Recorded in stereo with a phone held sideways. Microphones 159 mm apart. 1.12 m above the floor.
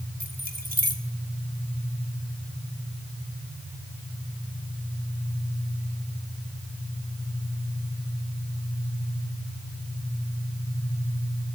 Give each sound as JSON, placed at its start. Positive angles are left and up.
{"t": 0.2, "sound": "keys jangling", "side_deg": -65, "distance_m": 2.0}